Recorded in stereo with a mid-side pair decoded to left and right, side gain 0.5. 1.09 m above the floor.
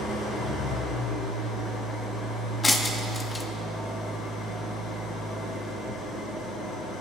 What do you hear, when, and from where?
0.0 s an engine running: 65° left, 4 m
2.6 s breaking glass: 25° left, 0.9 m